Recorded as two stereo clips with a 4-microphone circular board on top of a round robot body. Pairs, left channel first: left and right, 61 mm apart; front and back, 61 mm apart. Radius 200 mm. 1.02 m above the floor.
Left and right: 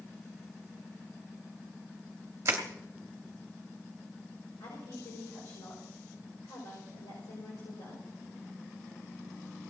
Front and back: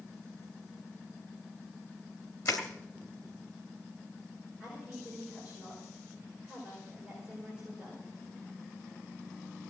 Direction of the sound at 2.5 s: 45° right.